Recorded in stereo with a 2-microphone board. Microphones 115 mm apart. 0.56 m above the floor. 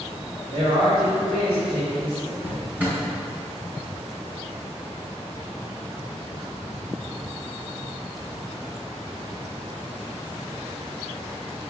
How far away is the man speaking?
About 2 m.